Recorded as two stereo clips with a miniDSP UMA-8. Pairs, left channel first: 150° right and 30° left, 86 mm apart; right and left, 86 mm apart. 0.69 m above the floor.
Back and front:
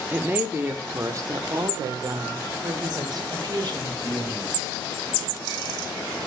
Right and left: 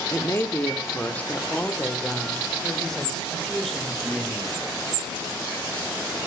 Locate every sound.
0.1 s a woman speaking: 40° right, 1.3 m; by 4.6 s straight ahead, 3.5 m